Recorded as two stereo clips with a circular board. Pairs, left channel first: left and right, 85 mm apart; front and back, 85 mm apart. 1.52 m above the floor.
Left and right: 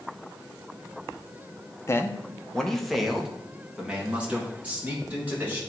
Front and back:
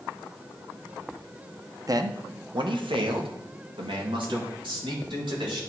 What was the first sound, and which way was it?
A man speaking, 140° left.